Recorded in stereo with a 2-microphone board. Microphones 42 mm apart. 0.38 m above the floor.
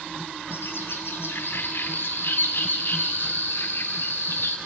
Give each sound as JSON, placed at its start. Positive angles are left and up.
{"t": 0.5, "sound": "a bird", "side_deg": 65, "distance_m": 2.0}